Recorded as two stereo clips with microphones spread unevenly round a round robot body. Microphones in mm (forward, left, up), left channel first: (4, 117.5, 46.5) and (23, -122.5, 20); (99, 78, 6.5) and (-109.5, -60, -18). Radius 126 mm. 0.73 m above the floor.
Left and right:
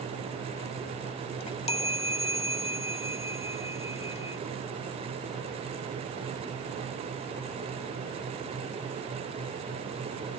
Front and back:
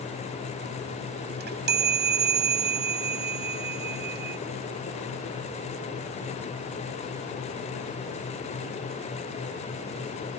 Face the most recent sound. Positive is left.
turn(degrees=165)